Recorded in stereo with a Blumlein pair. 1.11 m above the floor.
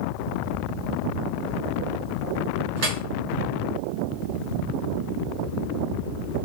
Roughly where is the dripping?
Ahead right.